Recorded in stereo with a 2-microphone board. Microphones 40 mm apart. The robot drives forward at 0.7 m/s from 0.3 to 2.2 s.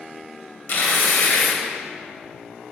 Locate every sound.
0.7 s tearing paper: 45° left (ahead or behind), 1.9 m; by 1.6 s 60° left (ahead or behind), 1.6 m